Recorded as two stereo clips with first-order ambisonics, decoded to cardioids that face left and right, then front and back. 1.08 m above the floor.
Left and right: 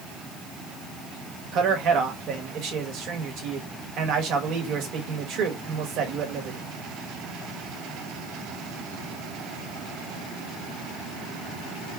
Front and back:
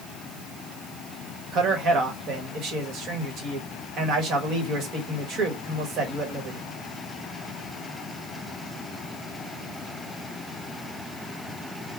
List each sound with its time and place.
1.5 s a man speaking: 130° right, 1.4 m